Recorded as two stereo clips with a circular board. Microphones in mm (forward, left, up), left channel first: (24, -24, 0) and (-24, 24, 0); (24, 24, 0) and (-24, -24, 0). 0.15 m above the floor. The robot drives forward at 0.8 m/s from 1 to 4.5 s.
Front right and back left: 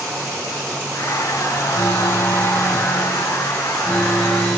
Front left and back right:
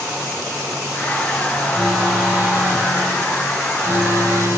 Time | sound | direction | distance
1.7 | an alarm | 70° right | 3 m